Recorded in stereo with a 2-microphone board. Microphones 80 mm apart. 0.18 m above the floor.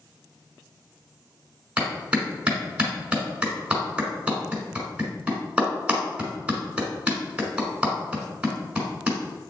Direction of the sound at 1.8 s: 15° right (ahead or behind).